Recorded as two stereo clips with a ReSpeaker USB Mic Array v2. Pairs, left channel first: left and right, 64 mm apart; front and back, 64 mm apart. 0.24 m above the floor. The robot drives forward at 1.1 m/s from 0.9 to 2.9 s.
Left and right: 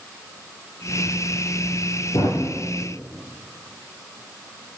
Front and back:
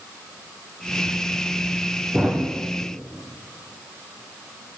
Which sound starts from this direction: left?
A thud, at 2.1 s.